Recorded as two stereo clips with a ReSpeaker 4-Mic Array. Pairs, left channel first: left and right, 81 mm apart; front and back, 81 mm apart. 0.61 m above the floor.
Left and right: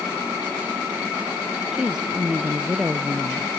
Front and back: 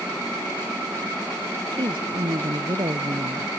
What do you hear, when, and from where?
1.7 s a woman speaking: 170° right